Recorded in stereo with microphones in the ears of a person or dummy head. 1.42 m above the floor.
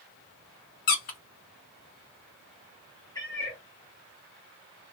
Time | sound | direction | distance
0.9 | a squeak | 45° left (ahead or behind) | 0.7 m
3.1 | a cat meowing | 15° left (ahead or behind) | 1.1 m